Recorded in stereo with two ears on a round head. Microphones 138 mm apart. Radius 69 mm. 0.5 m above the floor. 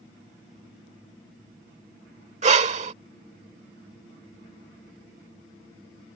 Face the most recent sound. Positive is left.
turn(degrees=-45)  # may be behind; listen again after turning